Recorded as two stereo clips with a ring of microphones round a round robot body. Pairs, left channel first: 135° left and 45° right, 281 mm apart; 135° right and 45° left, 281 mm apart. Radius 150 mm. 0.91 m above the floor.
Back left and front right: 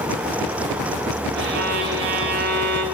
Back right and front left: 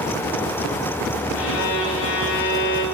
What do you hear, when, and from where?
1.4 s a violin: 95° right, 5 m